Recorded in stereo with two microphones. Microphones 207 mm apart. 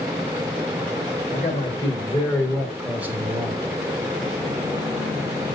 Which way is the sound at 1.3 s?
30° left (ahead or behind).